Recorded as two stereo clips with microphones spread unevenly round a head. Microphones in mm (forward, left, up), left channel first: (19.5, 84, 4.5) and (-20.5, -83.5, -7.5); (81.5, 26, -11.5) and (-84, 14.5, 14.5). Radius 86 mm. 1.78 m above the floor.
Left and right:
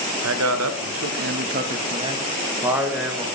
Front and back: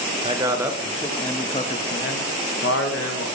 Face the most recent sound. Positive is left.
turn(degrees=-15)